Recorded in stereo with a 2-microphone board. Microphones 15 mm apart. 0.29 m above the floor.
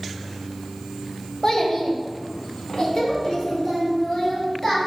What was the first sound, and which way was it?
A child speaking, 40° left (ahead or behind).